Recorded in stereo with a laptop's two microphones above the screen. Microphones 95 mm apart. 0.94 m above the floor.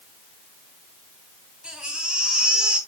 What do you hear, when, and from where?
1.6 s a baby crying: 10° right (ahead or behind), 4 m